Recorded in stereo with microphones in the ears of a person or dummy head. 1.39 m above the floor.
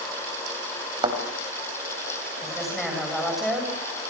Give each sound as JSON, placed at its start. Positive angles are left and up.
{"t": 1.0, "sound": "a thud", "side_deg": -35, "distance_m": 4.5}
{"t": 2.4, "sound": "a woman speaking", "side_deg": 5, "distance_m": 7.5}